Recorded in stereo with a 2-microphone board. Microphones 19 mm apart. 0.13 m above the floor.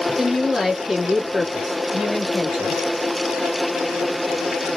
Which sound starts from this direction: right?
A woman speaking, at 0.1 s.